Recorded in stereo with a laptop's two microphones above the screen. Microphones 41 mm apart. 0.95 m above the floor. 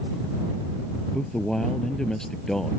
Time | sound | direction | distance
1.1 | a man speaking | 10° left (ahead or behind) | ?